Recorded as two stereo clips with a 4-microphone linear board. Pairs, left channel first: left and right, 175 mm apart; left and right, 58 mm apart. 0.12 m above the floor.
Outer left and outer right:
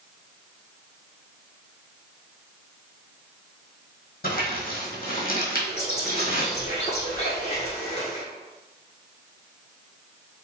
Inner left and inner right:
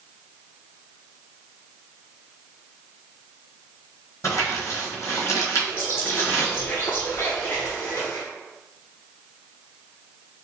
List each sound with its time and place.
4.2 s crumpling: 60° left (ahead or behind), 1.3 m
5.7 s a bird: 40° left (ahead or behind), 1.3 m